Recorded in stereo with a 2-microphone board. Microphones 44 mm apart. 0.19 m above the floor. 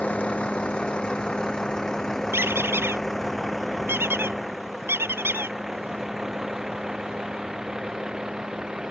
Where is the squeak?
65° right (ahead or behind).